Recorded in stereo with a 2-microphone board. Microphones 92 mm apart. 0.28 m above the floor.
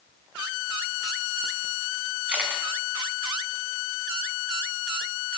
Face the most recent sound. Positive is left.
turn(degrees=-10)  # may be behind; listen again after turning